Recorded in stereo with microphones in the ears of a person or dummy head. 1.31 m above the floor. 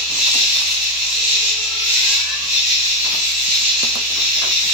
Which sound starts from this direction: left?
An insect, at 0.0 s.